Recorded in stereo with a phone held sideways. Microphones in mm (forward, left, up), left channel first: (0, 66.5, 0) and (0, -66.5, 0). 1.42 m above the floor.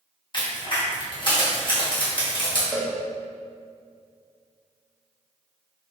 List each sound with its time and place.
0.3 s a crack: 40° left (ahead or behind), 1.5 m
2.7 s a cowbell: centre (ahead or behind), 0.9 m